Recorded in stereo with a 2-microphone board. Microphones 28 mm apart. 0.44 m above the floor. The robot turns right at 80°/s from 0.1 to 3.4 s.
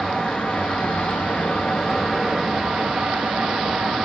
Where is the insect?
20° left, 1.0 m; by 4.1 s 75° right, 1.0 m.